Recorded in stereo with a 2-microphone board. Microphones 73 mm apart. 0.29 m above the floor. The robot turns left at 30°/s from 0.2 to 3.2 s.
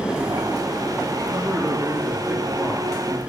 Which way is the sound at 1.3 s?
155° right.